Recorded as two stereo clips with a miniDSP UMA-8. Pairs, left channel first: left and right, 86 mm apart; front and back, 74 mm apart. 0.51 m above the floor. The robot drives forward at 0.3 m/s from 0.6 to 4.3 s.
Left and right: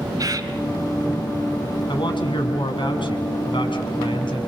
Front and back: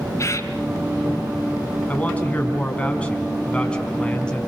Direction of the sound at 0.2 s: 45° right.